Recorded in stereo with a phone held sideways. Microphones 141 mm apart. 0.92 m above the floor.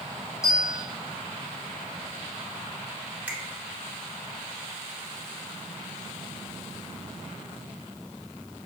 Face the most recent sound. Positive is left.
turn(degrees=-10)  # may be behind; listen again after turning